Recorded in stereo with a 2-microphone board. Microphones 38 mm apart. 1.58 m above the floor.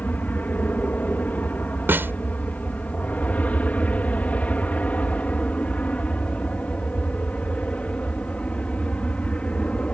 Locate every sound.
0.0 s an aircraft: 50° left (ahead or behind); by 9.9 s 35° left (ahead or behind)
1.9 s a snare drum: 90° right